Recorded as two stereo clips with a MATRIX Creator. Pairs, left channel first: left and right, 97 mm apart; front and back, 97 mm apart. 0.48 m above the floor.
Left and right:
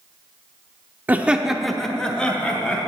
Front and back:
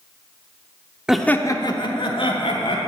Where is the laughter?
110° right, 0.7 m; by 2.8 s 10° left, 2.5 m.